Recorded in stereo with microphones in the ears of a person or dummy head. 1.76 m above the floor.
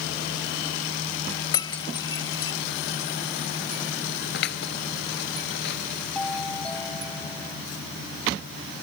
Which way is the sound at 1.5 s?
25° left (ahead or behind).